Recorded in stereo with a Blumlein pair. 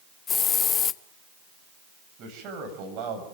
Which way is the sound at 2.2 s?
35° right.